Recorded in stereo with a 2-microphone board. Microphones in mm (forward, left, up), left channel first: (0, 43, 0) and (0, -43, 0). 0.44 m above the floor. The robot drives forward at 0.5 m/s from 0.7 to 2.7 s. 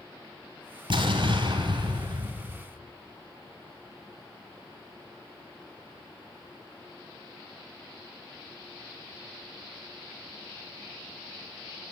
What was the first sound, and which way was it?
An explosion, 65° right (ahead or behind).